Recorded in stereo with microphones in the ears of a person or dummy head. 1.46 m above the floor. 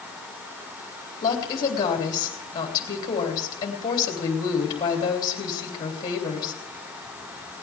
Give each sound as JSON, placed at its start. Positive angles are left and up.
{"t": 1.2, "sound": "a woman speaking", "side_deg": 25, "distance_m": 3.0}